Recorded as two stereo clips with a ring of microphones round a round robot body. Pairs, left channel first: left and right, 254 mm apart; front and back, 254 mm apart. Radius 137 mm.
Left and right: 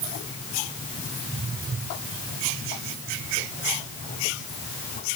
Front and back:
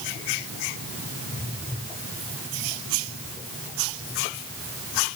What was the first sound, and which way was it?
Only background noise.